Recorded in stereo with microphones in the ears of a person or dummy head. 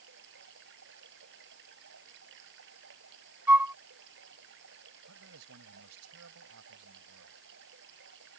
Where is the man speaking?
90° right.